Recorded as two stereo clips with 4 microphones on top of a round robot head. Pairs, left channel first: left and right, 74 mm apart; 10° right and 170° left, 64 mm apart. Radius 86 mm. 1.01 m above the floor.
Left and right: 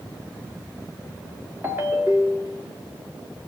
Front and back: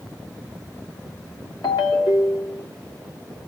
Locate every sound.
1.6 s a ringtone: 20° right, 2 m